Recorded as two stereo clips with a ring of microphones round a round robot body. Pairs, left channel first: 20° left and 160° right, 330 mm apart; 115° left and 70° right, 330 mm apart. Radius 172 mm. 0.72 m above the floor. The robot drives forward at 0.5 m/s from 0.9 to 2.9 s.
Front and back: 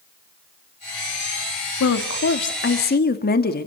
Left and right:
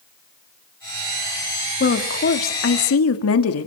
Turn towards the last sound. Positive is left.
turn(degrees=80)